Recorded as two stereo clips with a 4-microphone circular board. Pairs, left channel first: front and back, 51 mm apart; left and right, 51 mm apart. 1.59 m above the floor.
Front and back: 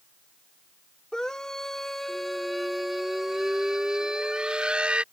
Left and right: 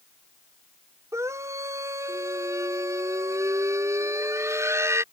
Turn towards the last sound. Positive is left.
turn(degrees=-115)